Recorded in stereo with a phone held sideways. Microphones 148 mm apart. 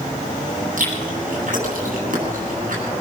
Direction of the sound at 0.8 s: 65° right (ahead or behind).